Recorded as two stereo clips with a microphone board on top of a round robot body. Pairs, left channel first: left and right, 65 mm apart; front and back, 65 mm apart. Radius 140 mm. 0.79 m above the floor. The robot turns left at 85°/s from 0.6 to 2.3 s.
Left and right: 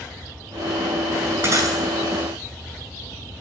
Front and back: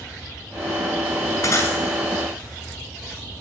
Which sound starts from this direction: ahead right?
Breaking glass, at 1.4 s.